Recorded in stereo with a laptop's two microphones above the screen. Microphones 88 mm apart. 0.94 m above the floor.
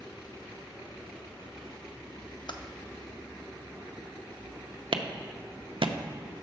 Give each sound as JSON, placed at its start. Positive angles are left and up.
{"t": 2.5, "sound": "typing on a keyboard", "side_deg": 55, "distance_m": 0.5}
{"t": 4.9, "sound": "a clap", "side_deg": -70, "distance_m": 0.7}